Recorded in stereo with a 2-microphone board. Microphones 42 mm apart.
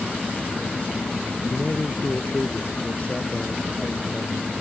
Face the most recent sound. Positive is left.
turn(degrees=35)  # may be behind; listen again after turning